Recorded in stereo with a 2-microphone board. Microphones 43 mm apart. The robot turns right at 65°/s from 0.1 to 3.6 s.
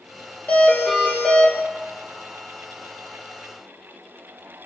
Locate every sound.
0.5 s a doorbell: 75° left, 1.0 m; by 1.5 s 145° left, 1.0 m